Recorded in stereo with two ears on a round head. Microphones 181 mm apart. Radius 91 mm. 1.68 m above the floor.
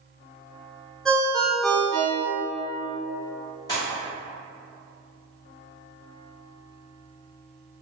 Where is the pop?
20° left (ahead or behind), 1.4 m.